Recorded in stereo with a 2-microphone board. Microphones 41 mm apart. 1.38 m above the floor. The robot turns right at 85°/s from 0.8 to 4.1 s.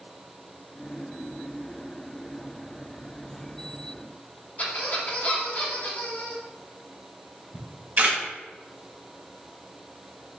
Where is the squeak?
40° left (ahead or behind), 1.1 m.